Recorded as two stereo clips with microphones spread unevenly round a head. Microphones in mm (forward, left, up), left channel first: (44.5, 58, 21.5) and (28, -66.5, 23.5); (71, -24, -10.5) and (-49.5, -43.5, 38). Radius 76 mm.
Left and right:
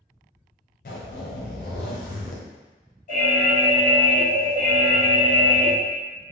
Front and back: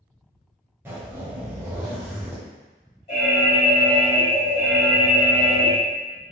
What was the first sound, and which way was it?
A zipper, 115° left.